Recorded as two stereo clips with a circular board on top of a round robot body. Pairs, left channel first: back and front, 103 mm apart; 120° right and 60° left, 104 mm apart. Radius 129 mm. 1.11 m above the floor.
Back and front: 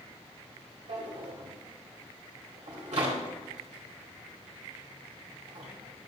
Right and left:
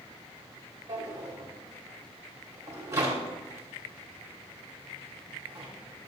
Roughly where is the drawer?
Ahead.